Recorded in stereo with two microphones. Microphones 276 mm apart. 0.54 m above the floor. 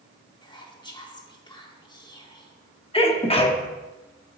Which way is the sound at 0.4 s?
15° left (ahead or behind).